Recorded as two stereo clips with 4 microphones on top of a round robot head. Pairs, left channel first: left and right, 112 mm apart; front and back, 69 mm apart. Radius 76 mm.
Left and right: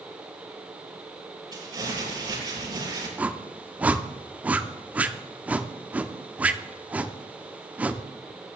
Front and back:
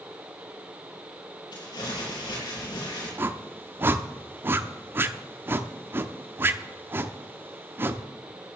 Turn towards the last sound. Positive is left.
turn(degrees=-160)